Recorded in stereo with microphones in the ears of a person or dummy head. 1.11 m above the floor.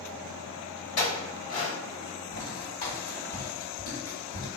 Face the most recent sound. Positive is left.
turn(degrees=45)  # may be behind; listen again after turning